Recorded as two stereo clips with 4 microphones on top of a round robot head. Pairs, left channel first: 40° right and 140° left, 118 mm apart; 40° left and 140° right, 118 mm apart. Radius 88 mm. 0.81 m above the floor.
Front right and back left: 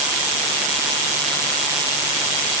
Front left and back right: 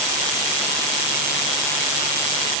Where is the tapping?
I don't hear tapping.